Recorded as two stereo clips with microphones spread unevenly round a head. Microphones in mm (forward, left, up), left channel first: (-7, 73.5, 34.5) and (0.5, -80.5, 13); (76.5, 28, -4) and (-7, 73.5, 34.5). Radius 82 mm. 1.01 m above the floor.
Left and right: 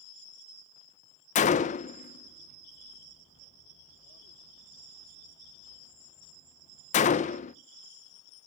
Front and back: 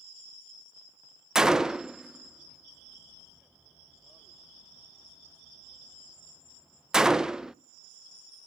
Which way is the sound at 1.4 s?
50° left.